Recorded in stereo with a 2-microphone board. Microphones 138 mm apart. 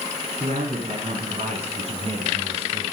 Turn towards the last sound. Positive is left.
turn(degrees=-45)  # may be behind; listen again after turning